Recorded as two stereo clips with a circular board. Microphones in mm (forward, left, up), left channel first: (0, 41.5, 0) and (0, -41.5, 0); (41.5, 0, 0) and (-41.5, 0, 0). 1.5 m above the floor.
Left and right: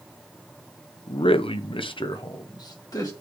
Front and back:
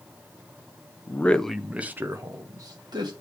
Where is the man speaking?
65° left, 0.7 m; by 3.1 s 140° left, 1.4 m.